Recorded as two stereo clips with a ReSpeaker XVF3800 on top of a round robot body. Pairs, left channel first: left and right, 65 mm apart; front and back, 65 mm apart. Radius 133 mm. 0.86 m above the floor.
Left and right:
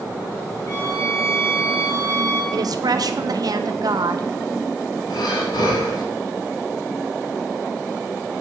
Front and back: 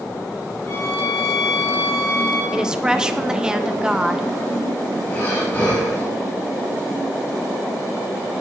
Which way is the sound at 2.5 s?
100° right.